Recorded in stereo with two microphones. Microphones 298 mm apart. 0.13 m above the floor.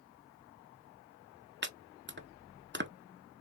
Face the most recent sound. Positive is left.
turn(degrees=-35)  # may be behind; listen again after turning